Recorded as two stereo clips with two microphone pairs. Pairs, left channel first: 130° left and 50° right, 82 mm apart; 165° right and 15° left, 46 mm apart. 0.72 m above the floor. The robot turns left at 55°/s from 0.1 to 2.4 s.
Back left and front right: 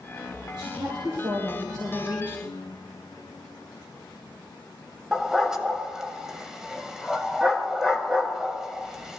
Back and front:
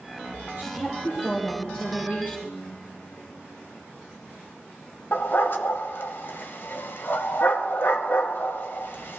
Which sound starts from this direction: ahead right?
A woman speaking, at 0.6 s.